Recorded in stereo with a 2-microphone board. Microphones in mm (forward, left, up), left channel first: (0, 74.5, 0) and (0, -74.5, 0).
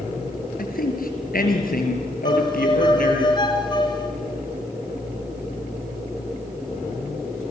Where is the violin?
30° left (ahead or behind), 3.5 m.